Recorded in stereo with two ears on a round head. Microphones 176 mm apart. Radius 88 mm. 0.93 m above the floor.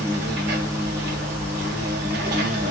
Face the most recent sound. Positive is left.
turn(degrees=-55)  # may be behind; listen again after turning